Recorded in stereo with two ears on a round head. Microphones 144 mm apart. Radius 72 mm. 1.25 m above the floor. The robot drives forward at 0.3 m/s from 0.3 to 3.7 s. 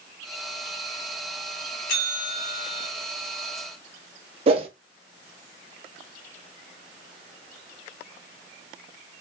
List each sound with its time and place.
1.9 s a bell: 60° left (ahead or behind), 1.8 m; by 2.9 s 65° left (ahead or behind), 1.7 m
4.5 s a whoosh: 40° right (ahead or behind), 0.8 m